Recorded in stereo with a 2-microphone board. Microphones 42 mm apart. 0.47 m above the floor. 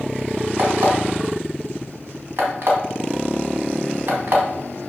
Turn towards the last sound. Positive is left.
turn(degrees=-60)  # may be behind; listen again after turning